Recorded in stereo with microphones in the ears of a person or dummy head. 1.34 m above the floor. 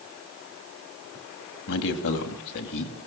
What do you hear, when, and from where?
1.7 s a man speaking: 65° left (ahead or behind), 2.5 m